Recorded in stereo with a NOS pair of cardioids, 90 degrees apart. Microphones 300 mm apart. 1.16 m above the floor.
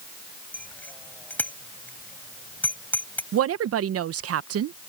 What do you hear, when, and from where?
0.5 s a bicycle bell: 5° left
3.3 s a woman speaking: 55° right